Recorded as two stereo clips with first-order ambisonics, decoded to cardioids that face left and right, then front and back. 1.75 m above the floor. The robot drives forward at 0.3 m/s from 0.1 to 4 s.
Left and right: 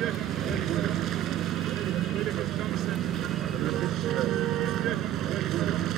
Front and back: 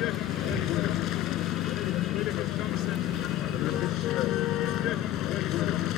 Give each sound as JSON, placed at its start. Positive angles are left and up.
{"t": 0.0, "sound": "a vehicle", "azimuth_deg": -40}